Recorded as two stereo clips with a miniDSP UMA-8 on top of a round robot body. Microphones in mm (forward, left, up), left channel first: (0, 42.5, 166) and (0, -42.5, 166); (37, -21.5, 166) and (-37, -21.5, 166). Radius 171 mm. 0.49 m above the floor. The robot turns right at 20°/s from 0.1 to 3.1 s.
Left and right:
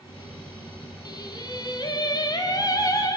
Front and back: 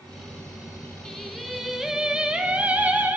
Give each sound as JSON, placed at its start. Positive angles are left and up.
{"t": 1.1, "sound": "singing", "azimuth_deg": 80, "distance_m": 1.6}